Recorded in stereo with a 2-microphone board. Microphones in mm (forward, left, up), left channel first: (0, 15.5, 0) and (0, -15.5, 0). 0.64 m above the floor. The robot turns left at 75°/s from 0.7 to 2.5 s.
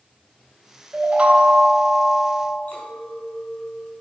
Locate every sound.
0.9 s a chime: 95° right, 1.2 m; by 2.6 s 150° left, 1.2 m
2.7 s a clink: 55° left (ahead or behind), 3.5 m